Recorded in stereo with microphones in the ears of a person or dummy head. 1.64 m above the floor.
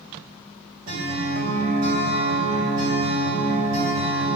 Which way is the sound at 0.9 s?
50° right (ahead or behind).